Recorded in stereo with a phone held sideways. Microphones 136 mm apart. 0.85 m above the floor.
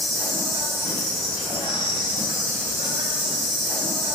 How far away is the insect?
About 1.7 m.